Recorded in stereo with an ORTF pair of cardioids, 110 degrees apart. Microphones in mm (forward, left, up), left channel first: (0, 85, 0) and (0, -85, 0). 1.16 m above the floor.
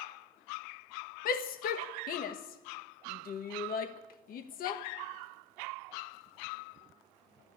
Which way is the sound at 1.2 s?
60° left.